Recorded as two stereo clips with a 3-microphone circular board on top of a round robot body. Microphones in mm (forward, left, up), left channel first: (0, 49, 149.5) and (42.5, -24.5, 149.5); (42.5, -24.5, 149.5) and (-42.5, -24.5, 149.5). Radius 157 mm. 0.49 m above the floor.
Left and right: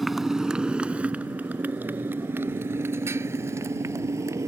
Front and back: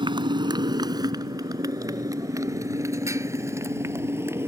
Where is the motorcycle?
150° right; by 4.5 s 115° right.